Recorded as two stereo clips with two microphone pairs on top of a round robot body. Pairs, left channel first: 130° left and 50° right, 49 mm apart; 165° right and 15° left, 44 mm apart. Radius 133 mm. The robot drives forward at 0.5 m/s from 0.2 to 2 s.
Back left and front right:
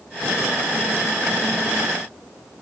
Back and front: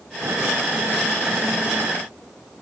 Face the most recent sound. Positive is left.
No sound to turn to.